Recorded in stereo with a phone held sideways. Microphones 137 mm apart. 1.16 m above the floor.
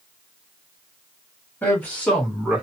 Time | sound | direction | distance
1.6 | a man speaking | 10° left (ahead or behind) | 1.6 m